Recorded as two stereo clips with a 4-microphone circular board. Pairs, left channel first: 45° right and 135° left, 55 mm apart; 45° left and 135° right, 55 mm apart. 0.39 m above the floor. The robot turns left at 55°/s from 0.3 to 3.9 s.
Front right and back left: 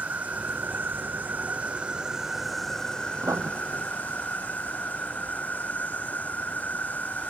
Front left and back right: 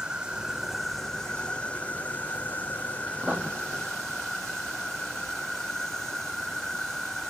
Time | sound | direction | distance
0.0 | an insect | 165° left | ?
3.2 | writing | 170° left | ?